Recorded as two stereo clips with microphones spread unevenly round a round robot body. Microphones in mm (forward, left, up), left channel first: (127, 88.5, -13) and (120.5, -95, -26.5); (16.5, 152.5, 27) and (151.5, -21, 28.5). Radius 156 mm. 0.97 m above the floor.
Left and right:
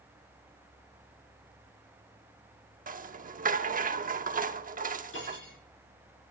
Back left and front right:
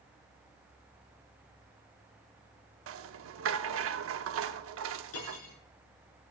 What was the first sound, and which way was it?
A rattle, 50° right.